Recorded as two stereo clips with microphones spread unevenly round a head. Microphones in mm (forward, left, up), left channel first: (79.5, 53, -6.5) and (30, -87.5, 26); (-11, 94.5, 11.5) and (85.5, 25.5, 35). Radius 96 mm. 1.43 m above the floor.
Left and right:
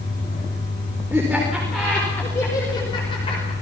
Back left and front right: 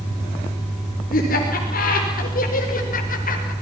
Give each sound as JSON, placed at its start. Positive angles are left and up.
{"t": 1.1, "sound": "laughter", "azimuth_deg": 170, "distance_m": 4.0}